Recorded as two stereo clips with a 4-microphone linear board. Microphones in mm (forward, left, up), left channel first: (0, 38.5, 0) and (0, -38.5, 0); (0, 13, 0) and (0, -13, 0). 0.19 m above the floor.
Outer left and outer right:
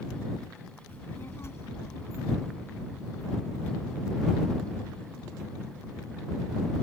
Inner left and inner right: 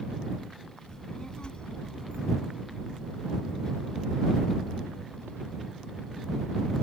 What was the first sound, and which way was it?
A child speaking, 30° left (ahead or behind).